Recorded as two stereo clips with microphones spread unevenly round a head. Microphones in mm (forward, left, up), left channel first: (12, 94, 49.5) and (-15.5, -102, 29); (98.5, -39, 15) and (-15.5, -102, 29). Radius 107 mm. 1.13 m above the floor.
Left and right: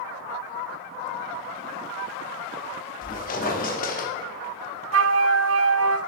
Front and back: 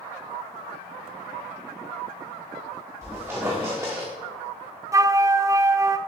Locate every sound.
3.0 s a squeak: 130° left, 1.5 m
4.9 s a flute: 100° right, 0.5 m